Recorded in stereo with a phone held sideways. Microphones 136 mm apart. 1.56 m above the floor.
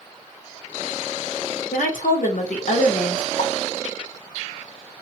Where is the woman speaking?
75° left (ahead or behind), 1.1 m.